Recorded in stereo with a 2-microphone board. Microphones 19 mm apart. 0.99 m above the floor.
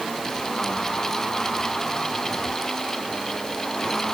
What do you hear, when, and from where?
Only background noise.